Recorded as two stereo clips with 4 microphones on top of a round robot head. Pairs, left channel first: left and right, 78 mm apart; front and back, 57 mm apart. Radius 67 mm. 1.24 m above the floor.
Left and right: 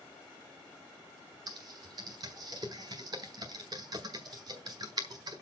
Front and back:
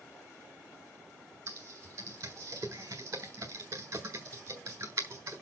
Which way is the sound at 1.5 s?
130° right.